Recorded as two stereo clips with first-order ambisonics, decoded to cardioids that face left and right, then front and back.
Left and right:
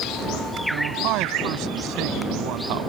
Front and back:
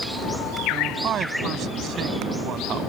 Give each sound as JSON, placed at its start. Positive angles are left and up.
{"t": 0.7, "sound": "a man speaking", "azimuth_deg": -125}